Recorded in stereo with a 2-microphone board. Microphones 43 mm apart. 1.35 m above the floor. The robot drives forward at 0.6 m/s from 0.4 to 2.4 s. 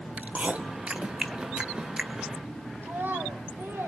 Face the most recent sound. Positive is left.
turn(degrees=-60)  # may be behind; listen again after turning